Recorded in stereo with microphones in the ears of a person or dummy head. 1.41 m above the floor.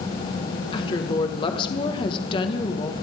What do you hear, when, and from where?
0.7 s a woman speaking: 25° left (ahead or behind), 1.4 m